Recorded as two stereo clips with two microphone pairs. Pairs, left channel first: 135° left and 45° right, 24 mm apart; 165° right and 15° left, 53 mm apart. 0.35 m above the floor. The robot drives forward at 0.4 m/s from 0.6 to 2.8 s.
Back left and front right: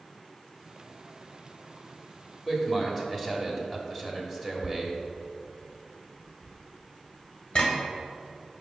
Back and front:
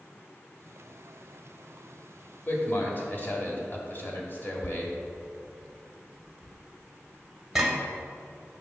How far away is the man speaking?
About 1.4 m.